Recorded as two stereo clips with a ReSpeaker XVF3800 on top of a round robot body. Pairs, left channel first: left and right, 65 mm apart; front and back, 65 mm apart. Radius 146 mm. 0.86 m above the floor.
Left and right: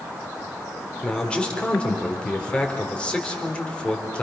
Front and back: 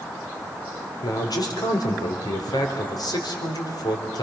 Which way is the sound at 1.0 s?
15° left.